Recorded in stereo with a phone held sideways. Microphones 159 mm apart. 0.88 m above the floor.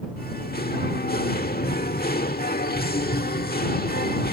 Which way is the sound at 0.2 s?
75° left (ahead or behind).